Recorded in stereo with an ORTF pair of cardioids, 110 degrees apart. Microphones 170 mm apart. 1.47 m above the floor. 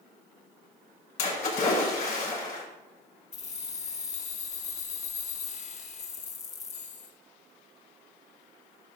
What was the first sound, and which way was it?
A splash, 60° left.